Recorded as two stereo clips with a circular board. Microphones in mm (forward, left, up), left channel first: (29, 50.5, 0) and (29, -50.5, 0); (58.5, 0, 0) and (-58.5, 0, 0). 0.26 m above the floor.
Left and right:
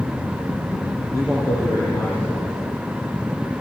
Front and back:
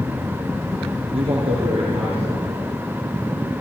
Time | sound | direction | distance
1.1 | a man speaking | 155° left | 5.5 m